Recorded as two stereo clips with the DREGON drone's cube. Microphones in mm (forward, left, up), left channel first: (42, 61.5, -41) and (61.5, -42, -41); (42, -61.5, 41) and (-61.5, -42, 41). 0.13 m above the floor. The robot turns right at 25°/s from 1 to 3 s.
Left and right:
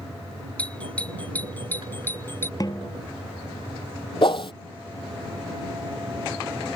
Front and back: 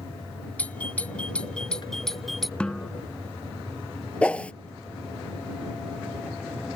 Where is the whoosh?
65° left.